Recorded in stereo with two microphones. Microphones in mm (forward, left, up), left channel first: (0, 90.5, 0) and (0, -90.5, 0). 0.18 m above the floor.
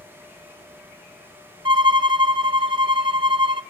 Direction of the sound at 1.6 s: 30° right (ahead or behind).